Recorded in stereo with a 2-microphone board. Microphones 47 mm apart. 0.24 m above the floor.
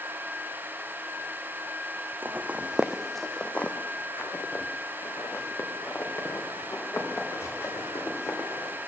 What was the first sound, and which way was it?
Footsteps, 45° right (ahead or behind).